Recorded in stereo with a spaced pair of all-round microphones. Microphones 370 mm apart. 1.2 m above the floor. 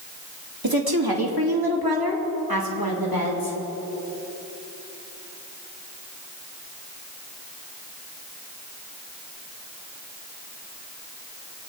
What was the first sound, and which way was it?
A woman speaking, 75° right (ahead or behind).